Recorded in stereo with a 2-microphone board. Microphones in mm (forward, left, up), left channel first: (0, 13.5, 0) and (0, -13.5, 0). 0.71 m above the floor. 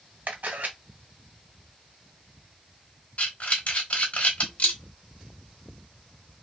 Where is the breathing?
45° left (ahead or behind), 1.1 m.